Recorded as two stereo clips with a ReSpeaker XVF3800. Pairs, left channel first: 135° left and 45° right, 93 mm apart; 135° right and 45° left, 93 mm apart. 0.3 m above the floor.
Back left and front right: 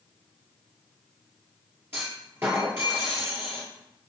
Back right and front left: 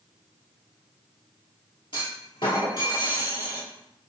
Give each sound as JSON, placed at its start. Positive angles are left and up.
{"t": 1.9, "sound": "a clunk", "azimuth_deg": -110, "distance_m": 1.6}